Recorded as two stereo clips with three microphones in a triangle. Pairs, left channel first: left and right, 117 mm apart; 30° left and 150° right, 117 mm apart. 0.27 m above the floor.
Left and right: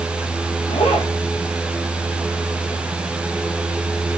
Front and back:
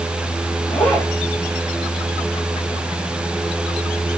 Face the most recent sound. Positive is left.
turn(degrees=105)